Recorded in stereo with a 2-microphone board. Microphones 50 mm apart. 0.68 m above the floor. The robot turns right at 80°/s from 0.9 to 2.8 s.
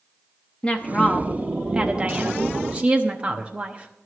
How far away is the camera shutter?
I don't hear a camera shutter.